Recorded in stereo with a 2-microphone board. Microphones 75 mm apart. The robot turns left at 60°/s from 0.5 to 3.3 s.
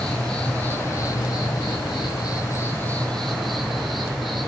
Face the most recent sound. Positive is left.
turn(degrees=0)